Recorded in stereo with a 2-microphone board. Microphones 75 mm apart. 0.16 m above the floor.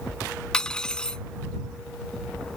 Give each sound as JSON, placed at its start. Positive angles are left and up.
{"t": 0.5, "sound": "cutlery clinking", "side_deg": 10}